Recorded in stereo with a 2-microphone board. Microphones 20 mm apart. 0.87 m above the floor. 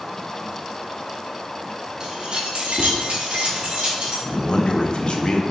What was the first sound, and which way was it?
Keys jangling, 40° right (ahead or behind).